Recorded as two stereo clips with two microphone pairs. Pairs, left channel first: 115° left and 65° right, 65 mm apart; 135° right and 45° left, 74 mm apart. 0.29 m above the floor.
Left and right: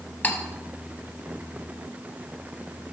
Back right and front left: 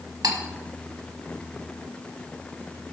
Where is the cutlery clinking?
55° left, 1.1 m.